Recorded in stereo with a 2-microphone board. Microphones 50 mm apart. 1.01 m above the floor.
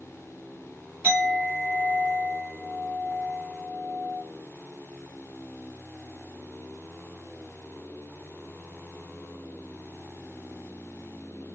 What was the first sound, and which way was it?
A clink, 30° right (ahead or behind).